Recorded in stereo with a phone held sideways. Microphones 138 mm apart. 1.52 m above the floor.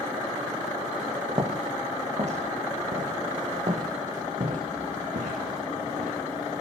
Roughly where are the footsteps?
Right.